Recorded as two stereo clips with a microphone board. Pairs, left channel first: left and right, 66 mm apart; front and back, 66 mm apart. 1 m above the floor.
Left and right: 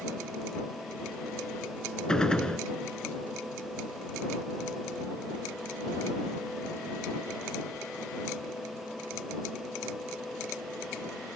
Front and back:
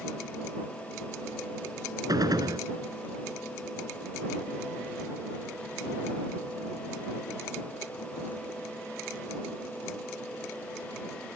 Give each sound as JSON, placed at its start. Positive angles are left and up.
{"t": 2.1, "sound": "a gunshot", "azimuth_deg": 165}